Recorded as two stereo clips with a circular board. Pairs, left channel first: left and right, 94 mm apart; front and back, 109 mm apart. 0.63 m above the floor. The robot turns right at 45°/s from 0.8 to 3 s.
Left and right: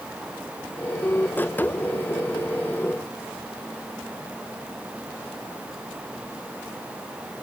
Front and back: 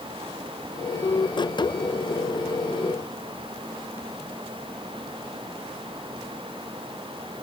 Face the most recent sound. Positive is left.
No sound to turn to.